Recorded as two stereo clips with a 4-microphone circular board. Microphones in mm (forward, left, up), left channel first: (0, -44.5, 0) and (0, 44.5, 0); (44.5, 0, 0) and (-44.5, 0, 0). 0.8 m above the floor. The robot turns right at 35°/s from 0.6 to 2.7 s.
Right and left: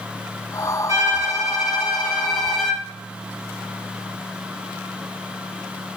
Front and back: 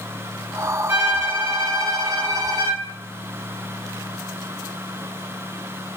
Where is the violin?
120° left, 0.8 m; by 2.8 s straight behind, 0.8 m.